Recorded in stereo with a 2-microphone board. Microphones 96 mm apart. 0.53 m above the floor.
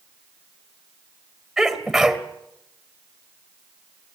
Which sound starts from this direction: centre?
A sneeze, at 1.6 s.